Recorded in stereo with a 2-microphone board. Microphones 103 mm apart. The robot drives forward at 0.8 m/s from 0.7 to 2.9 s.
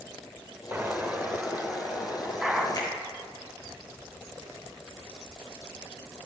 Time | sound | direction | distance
0.7 | an explosion | 20° right (ahead or behind) | 0.5 m
2.7 | a finger snap | 40° left (ahead or behind) | 3.5 m